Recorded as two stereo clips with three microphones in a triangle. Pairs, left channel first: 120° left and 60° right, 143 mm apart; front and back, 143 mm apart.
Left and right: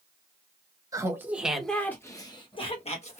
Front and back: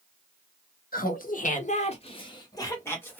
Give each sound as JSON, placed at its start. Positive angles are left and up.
{"t": 0.9, "sound": "laughter", "azimuth_deg": 10, "distance_m": 1.0}